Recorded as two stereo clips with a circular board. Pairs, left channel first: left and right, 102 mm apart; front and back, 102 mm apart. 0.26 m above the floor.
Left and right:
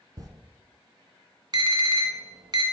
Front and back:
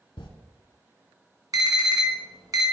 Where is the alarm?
130° right, 1.5 m.